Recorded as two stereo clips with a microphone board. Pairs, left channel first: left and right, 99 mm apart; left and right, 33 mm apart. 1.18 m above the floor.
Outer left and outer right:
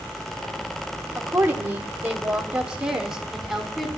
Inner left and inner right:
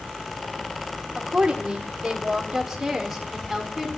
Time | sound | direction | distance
1.1 | a woman speaking | 30° right (ahead or behind) | 2.5 m